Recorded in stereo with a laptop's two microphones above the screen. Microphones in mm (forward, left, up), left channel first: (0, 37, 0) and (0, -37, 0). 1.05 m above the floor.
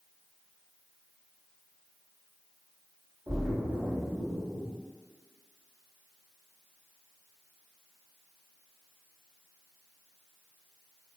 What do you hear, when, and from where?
3.3 s a splash: 35° right (ahead or behind), 1.8 m